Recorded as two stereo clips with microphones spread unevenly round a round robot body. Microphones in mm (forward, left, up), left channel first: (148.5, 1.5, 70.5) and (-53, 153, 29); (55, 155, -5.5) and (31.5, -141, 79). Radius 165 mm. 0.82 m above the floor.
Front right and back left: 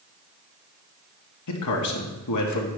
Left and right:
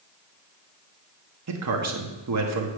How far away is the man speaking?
About 1.3 m.